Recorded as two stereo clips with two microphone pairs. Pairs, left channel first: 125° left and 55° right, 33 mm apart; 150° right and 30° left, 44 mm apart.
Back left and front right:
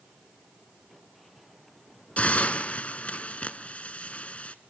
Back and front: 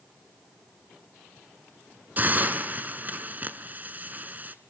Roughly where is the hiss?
Left.